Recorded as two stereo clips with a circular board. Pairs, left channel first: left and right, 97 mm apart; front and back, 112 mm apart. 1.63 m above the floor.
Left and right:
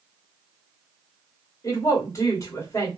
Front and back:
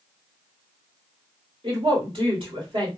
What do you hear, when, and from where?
1.6 s a woman speaking: 145° left, 1.6 m